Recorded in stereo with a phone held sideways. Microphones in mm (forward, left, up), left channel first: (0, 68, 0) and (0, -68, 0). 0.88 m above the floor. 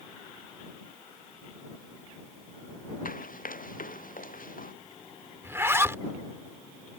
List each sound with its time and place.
3.0 s running footsteps: 85° left
5.4 s a zipper: 20° right (ahead or behind)